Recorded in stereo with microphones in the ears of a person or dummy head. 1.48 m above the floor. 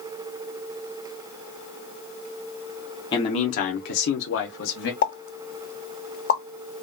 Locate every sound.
3.1 s a man speaking: 25° left (ahead or behind), 0.7 m; by 4.9 s 60° left (ahead or behind), 0.9 m
5.0 s a pop: 55° left (ahead or behind), 0.8 m